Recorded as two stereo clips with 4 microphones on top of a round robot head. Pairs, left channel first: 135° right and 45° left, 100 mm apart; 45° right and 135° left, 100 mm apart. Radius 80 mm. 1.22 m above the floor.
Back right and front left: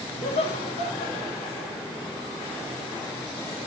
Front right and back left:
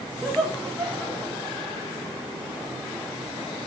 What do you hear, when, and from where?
0.2 s laughter: 135° right, 3 m; by 1.7 s 155° right, 3 m